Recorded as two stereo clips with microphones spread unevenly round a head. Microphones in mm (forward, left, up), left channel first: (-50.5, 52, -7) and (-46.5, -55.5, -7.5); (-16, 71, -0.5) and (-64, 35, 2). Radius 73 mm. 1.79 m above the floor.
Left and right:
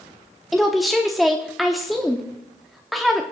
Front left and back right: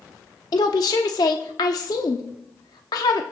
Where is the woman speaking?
Straight ahead, 0.8 m.